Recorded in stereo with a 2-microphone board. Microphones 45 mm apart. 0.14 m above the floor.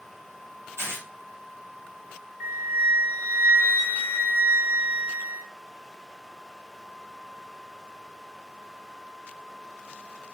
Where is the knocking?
I don't hear knocking.